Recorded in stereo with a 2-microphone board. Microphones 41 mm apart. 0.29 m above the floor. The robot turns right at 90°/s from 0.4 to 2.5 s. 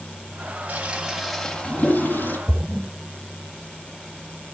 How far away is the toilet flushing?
About 1.6 m.